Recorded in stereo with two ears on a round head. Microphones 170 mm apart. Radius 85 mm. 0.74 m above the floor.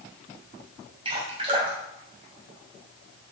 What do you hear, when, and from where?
1.1 s dripping: 30° right (ahead or behind), 3 m